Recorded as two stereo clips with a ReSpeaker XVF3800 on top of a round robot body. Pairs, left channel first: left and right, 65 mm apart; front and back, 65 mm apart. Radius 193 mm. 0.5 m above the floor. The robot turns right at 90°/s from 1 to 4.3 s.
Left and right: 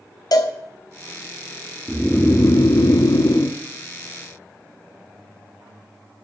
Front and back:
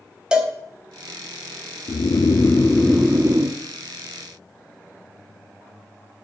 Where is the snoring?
Straight ahead, 0.6 m; by 3.6 s 150° left, 0.6 m.